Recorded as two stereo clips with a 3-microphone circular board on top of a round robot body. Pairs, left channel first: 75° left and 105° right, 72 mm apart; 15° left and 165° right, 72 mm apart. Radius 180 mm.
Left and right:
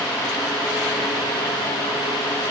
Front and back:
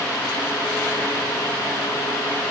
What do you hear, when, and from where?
Only background noise.